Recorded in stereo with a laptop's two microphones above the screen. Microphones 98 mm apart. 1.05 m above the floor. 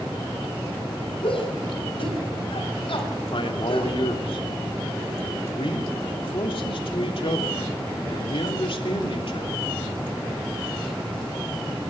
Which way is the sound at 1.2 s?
65° left (ahead or behind).